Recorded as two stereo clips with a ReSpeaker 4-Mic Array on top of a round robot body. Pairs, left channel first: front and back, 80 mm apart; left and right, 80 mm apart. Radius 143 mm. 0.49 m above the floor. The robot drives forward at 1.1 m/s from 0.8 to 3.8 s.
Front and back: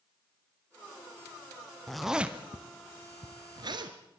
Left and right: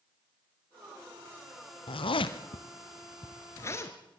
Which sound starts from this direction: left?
A zipper, at 1.9 s.